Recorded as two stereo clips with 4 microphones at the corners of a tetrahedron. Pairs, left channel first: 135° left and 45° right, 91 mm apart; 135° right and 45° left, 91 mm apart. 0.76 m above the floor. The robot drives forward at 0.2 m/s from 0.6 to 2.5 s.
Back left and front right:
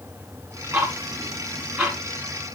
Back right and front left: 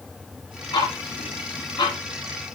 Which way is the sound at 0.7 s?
110° right.